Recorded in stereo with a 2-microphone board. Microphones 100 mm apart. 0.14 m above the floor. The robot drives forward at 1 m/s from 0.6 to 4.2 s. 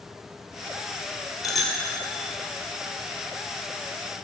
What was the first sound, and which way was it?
A bicycle bell, centre (ahead or behind).